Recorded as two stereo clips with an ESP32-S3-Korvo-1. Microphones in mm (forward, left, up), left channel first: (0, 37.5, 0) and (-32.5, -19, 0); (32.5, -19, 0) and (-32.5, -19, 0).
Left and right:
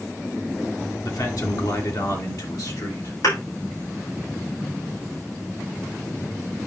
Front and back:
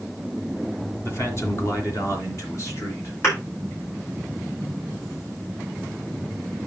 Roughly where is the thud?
Ahead left.